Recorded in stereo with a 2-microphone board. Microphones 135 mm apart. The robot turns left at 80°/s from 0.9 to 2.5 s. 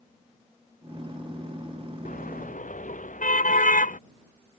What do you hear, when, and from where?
2.0 s a car horn: 110° left; by 4.0 s 75° left